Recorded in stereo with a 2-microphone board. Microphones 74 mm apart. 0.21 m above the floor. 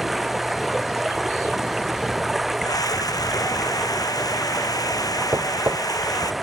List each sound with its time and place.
0.0 s running water: centre (ahead or behind)
2.6 s a scream: 55° left (ahead or behind)
5.3 s knocking: 35° right (ahead or behind)